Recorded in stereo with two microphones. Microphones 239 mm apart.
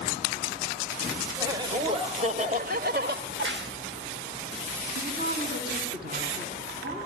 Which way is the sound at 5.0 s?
45° right (ahead or behind).